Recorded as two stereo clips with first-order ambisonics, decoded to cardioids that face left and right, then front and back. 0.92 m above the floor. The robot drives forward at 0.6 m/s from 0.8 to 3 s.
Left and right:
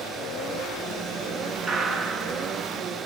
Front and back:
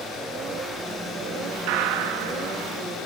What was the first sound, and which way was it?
A gunshot, 170° right.